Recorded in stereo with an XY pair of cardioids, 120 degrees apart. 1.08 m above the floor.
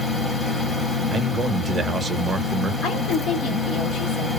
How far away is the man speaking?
About 0.7 m.